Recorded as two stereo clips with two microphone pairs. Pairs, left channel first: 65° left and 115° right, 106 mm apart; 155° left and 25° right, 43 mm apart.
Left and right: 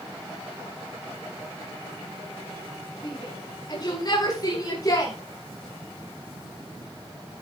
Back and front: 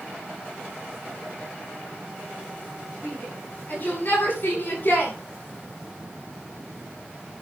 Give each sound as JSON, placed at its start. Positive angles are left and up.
{"t": 3.0, "sound": "a shout", "azimuth_deg": 110, "distance_m": 8.0}